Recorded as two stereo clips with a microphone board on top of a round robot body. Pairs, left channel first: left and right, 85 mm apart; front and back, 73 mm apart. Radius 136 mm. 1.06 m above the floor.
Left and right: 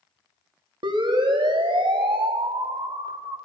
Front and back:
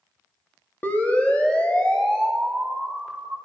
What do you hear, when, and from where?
0.8 s a siren: 65° right, 3 m; by 3.4 s 85° right, 5.5 m